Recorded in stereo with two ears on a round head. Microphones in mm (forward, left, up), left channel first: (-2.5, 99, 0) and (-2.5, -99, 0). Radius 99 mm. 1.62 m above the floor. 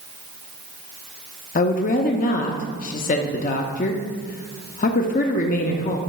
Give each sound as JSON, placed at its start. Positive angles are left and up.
{"t": 1.6, "sound": "a woman speaking", "side_deg": 40, "distance_m": 0.5}